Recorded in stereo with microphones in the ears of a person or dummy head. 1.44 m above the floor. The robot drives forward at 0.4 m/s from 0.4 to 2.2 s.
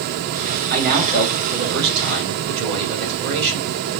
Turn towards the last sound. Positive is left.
turn(degrees=-55)  # may be behind; listen again after turning